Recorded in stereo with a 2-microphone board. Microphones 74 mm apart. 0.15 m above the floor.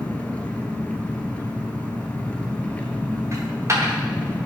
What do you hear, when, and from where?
0.0 s an engine running: 20° left (ahead or behind), 1.2 m
3.3 s a dropped coin: 40° right (ahead or behind), 3.5 m